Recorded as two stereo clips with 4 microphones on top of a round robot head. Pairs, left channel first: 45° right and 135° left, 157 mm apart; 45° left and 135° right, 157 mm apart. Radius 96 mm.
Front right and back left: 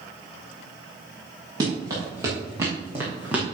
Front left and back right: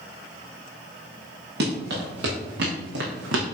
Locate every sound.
1.6 s running footsteps: 155° right, 5 m; by 3.4 s 145° right, 2.5 m